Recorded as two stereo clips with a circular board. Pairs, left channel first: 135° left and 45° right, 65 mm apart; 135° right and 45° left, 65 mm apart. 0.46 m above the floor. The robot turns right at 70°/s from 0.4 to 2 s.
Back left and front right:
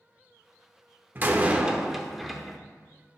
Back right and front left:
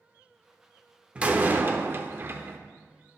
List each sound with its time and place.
1.1 s a door slam: 15° right, 0.6 m; by 2.6 s 45° left, 0.6 m